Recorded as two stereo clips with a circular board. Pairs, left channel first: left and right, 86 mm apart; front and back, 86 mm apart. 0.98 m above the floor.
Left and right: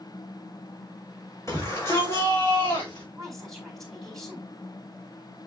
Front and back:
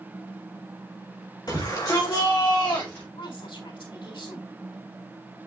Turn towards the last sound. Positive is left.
turn(degrees=5)